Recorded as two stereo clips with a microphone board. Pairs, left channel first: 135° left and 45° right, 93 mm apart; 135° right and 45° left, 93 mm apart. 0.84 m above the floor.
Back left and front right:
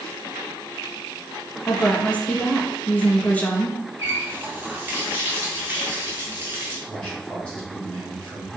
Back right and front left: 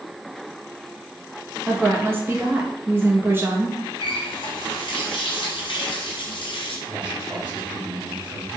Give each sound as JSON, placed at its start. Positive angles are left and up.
{"t": 1.7, "sound": "a woman speaking", "azimuth_deg": 75, "distance_m": 0.5}
{"t": 4.0, "sound": "a running tap", "azimuth_deg": -110, "distance_m": 0.7}
{"t": 6.9, "sound": "a man speaking", "azimuth_deg": 65, "distance_m": 1.7}